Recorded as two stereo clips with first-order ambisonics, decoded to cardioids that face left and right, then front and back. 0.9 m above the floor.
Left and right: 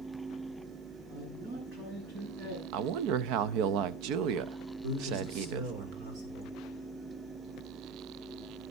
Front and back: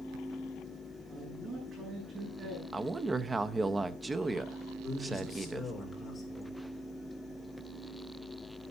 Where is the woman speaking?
105° right, 0.6 m.